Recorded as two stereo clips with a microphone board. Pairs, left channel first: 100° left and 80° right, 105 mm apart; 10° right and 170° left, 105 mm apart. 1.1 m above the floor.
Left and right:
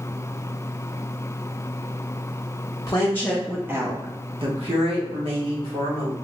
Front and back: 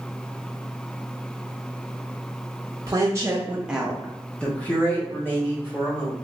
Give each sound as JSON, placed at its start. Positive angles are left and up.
{"t": 2.9, "sound": "a woman speaking", "azimuth_deg": 130, "distance_m": 0.8}